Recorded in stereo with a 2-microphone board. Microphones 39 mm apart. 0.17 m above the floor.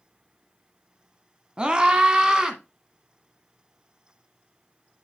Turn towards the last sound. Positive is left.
turn(degrees=-15)  # may be behind; listen again after turning